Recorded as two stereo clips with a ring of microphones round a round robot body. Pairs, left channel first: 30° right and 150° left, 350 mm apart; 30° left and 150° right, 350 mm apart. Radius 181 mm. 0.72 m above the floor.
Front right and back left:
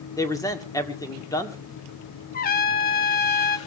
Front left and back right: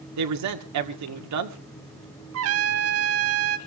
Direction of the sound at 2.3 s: 95° right.